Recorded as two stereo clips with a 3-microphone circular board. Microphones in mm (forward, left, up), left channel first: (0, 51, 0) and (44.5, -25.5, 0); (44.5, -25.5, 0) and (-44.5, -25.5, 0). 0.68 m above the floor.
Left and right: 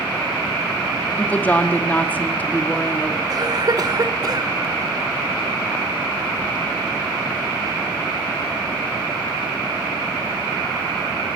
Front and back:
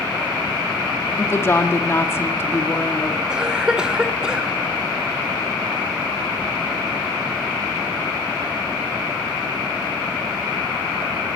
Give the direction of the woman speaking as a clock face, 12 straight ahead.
10 o'clock.